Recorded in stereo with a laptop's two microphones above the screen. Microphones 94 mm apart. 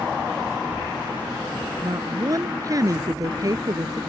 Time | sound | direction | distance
1.8 | a woman speaking | 40° right (ahead or behind) | ?